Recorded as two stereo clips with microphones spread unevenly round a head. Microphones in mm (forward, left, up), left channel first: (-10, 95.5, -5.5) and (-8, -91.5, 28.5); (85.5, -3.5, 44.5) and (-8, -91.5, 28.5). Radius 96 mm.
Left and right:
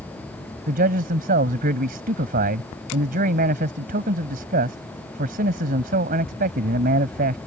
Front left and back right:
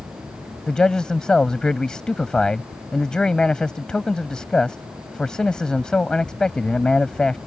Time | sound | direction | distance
0.7 | a man speaking | 40° right | ?